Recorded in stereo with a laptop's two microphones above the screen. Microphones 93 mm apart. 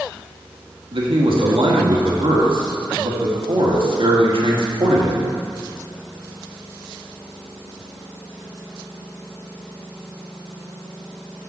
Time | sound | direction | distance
0.9 | a man speaking | 65° right (ahead or behind) | 1.7 m